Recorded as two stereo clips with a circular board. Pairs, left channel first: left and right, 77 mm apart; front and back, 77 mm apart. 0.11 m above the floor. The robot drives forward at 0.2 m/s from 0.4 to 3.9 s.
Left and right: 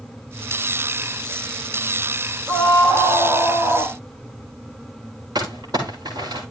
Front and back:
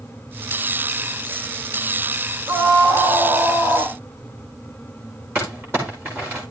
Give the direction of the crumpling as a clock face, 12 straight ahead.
4 o'clock.